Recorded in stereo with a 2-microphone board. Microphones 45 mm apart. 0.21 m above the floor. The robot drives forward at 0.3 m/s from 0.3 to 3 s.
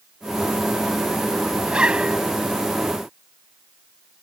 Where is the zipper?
25° right (ahead or behind).